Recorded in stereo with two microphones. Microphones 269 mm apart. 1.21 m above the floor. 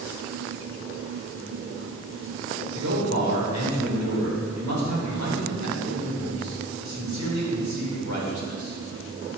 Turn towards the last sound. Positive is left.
turn(degrees=-85)